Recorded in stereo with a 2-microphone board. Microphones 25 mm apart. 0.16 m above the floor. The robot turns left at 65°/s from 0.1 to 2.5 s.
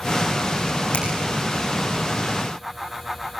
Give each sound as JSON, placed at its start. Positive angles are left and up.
{"t": 0.9, "sound": "a finger snap", "side_deg": 60, "distance_m": 7.0}